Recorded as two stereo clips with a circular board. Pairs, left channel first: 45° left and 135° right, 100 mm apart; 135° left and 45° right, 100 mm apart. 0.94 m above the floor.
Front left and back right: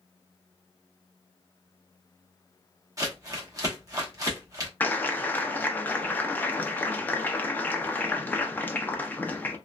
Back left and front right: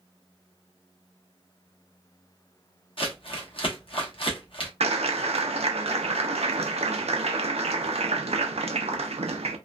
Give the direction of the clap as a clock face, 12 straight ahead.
1 o'clock.